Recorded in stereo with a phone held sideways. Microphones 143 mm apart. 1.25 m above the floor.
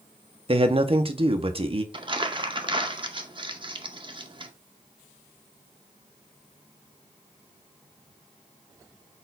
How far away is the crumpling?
About 0.5 m.